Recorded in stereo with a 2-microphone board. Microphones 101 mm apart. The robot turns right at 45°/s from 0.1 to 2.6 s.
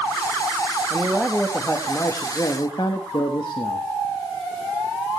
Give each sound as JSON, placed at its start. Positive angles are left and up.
{"t": 0.9, "sound": "a man speaking", "azimuth_deg": -20, "distance_m": 1.3}